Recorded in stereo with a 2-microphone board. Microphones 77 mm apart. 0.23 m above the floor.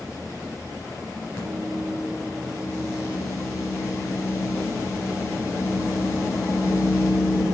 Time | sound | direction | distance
1.4 | a microwave | 30° left (ahead or behind) | 3 m